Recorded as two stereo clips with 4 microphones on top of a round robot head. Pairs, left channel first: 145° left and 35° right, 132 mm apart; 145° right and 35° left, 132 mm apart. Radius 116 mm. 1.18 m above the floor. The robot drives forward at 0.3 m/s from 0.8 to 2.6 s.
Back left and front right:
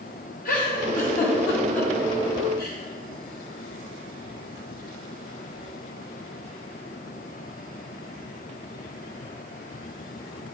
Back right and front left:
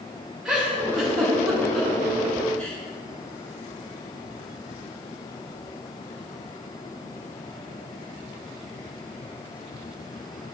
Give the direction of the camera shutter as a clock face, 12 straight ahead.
I don't hear a camera shutter.